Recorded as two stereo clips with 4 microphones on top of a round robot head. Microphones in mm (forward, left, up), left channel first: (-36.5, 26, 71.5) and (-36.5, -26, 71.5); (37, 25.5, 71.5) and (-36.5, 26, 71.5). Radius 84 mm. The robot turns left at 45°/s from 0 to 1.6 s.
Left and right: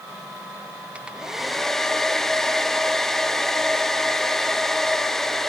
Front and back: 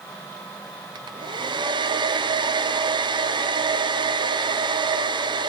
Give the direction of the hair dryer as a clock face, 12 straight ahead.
5 o'clock.